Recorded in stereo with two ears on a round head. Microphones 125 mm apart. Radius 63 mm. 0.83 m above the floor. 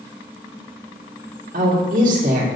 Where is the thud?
I don't hear a thud.